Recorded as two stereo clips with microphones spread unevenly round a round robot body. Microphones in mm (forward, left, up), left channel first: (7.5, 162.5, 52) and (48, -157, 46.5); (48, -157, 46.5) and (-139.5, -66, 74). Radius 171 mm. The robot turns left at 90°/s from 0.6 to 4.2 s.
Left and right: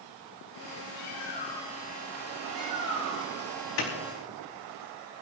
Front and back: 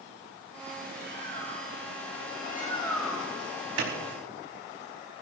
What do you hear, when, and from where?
0.9 s a bird: 75° left, 3 m; by 3.5 s 155° right, 3 m
3.8 s a clap: 140° left, 4.5 m; by 3.9 s 125° left, 4.5 m